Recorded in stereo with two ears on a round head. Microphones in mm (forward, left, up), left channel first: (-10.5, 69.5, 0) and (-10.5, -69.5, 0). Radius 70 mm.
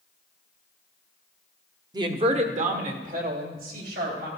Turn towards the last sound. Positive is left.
turn(degrees=-70)  # may be behind; listen again after turning